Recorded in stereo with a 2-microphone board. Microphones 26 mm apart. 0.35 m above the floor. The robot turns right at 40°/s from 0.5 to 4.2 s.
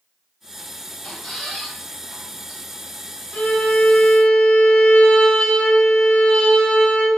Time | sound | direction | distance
1.0 | a squeak | 40° left (ahead or behind) | 1.1 m
3.3 | a violin | 95° left | 0.9 m